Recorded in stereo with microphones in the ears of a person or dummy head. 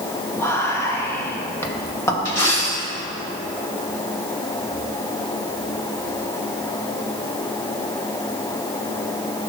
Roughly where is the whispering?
Centre.